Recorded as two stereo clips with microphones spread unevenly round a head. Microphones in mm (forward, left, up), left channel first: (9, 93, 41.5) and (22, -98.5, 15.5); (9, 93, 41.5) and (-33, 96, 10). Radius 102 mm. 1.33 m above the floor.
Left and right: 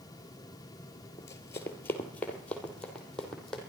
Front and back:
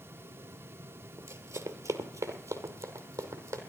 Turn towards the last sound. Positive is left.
turn(degrees=180)